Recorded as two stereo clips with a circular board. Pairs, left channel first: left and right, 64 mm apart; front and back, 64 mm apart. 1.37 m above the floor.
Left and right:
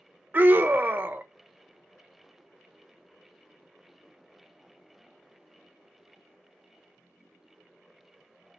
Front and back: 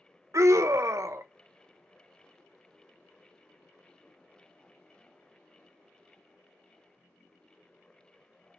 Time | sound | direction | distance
0.3 | a scream | 150° right | 1.0 m